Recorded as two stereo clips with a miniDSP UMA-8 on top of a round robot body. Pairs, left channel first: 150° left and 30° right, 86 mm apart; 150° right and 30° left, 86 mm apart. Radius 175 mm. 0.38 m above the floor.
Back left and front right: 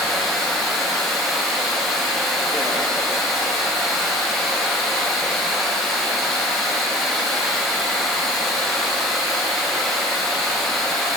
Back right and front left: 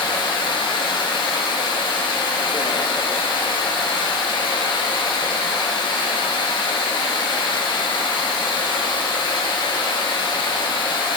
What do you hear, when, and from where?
0.0 s running water: 125° right, 0.7 m